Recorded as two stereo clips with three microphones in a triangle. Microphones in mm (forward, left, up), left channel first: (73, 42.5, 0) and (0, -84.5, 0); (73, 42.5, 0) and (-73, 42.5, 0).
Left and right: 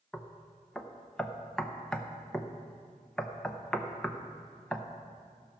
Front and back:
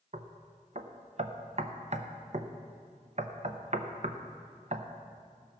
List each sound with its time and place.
0.1 s knocking: 145° left, 0.7 m